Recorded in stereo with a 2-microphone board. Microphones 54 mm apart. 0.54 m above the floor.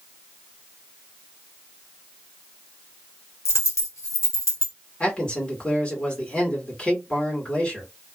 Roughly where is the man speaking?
Left.